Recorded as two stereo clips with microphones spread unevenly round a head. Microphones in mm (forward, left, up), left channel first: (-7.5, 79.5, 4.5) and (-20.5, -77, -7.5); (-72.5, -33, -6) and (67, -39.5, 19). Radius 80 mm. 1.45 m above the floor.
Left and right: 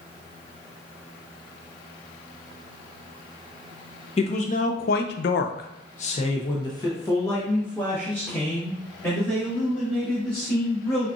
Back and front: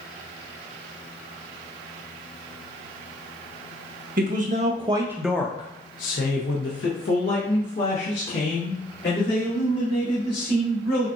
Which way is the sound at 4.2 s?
30° left.